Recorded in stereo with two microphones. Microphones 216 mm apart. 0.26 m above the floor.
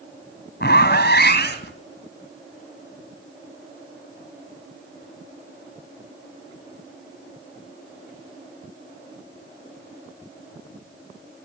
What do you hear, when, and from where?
0.6 s a zipper: 50° left (ahead or behind), 1.9 m